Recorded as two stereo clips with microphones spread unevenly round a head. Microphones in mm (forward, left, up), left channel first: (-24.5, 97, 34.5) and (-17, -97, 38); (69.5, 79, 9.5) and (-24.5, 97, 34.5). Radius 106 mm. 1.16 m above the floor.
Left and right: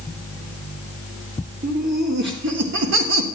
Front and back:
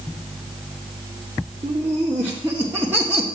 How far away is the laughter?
About 1.9 m.